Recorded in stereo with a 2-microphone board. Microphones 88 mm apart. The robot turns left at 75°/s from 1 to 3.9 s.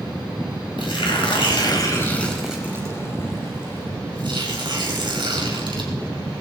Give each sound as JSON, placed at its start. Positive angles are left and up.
{"t": 0.8, "sound": "tearing paper", "azimuth_deg": 105, "distance_m": 4.5}